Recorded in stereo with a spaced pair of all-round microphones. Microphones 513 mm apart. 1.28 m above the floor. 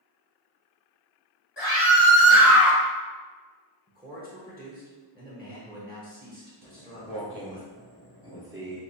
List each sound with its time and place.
1.6 s a scream: 55° left (ahead or behind), 1.9 m; by 2.8 s 65° left (ahead or behind), 2.5 m
3.9 s a man speaking: 20° right (ahead or behind), 1.1 m
6.6 s footsteps: 50° right (ahead or behind), 1.8 m; by 8.8 s 20° right (ahead or behind), 1.5 m